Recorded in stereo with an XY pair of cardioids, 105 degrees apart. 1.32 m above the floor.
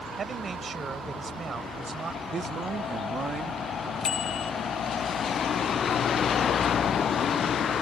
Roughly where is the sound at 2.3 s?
Ahead right.